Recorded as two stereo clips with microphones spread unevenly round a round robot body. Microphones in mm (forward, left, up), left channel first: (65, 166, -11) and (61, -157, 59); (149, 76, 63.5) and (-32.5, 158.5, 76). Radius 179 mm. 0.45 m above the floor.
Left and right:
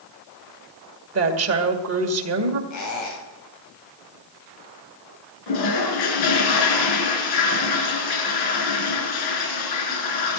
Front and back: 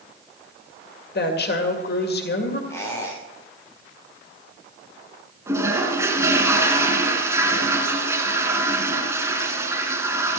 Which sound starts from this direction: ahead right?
A woman speaking, at 1.1 s.